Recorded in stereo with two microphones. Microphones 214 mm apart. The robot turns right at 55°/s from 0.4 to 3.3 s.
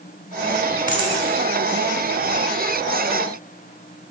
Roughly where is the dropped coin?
Right.